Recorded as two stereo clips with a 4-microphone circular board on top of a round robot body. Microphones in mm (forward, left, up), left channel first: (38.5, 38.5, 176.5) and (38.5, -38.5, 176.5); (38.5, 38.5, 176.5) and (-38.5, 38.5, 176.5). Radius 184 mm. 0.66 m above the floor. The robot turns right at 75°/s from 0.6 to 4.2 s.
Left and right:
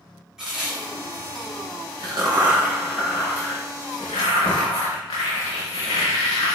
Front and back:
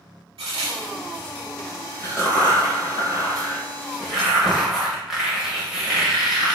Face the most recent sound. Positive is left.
turn(degrees=95)